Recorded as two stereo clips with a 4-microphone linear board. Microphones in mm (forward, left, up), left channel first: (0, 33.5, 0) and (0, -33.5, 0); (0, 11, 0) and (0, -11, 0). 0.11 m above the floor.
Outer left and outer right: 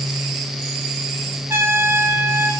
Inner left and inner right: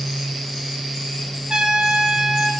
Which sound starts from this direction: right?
A trumpet, at 1.5 s.